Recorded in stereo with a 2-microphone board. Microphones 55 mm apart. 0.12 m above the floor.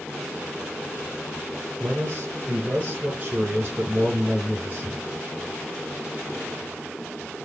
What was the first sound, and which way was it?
A man speaking, 30° right (ahead or behind).